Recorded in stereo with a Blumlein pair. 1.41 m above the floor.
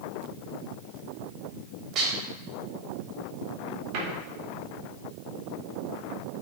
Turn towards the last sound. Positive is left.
turn(degrees=-45)